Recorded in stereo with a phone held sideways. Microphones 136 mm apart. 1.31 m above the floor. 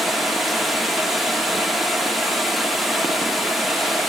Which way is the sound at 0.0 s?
Centre (ahead or behind).